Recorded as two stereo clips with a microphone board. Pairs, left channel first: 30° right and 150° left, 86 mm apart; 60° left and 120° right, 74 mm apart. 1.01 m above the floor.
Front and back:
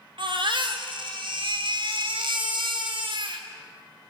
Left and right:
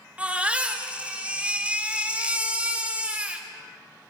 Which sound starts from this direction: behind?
A baby crying, at 0.2 s.